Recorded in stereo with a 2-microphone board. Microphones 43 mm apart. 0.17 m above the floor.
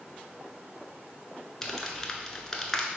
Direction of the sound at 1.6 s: 15° left (ahead or behind).